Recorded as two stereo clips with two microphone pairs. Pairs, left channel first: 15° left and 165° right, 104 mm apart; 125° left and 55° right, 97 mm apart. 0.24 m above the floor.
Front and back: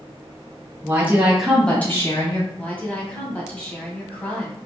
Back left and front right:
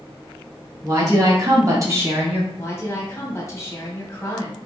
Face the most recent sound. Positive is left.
turn(degrees=80)